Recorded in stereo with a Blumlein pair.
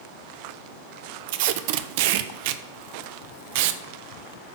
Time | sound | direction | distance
1.3 | tape being pulled | 50° right | 0.5 m